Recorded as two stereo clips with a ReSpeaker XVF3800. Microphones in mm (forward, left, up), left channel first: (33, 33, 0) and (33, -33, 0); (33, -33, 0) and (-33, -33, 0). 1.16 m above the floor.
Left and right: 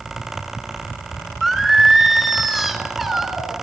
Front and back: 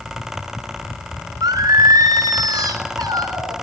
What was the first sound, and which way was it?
Singing, 175° right.